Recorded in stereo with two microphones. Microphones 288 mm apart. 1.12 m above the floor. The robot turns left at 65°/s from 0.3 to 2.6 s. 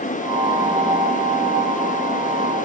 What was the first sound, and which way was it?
Only background noise.